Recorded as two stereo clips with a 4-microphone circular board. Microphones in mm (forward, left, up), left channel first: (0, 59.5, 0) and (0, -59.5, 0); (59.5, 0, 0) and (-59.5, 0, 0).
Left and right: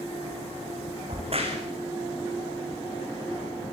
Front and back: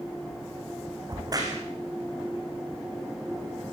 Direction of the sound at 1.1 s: 120° right.